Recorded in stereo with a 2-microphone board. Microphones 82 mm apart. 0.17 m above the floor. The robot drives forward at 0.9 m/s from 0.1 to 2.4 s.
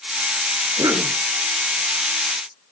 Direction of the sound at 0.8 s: 45° right (ahead or behind).